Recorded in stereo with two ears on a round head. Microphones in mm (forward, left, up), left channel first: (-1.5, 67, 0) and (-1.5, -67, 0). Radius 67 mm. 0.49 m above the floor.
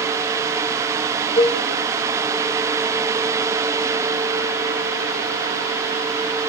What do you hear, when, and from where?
1.4 s a cowbell: 35° left (ahead or behind), 0.9 m